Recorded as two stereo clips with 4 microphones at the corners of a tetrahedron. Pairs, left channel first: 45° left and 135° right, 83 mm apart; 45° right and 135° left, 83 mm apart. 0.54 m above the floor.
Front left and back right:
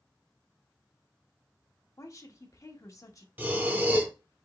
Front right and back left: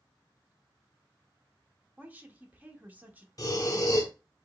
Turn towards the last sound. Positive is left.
turn(degrees=-75)